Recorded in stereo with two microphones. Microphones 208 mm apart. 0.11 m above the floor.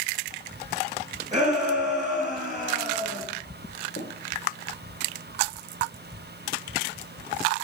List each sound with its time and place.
1.3 s a shout: 35° right (ahead or behind), 3.5 m
4.0 s tapping: 55° left (ahead or behind), 1.8 m